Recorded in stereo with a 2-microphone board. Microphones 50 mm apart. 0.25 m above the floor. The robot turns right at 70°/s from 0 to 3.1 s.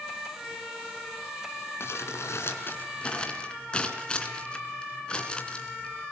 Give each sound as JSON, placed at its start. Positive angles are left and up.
{"t": 1.8, "sound": "crumpling", "side_deg": 60, "distance_m": 3.0}